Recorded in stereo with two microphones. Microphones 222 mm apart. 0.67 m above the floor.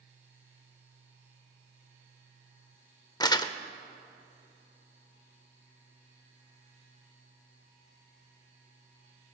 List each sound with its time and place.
3.2 s crumpling: 20° left (ahead or behind), 0.5 m